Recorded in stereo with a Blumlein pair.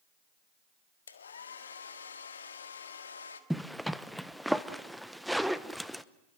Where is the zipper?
Straight ahead, 0.9 m.